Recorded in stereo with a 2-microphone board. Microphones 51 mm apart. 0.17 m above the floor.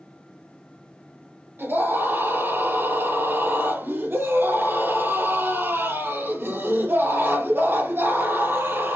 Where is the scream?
50° right (ahead or behind), 2.5 m.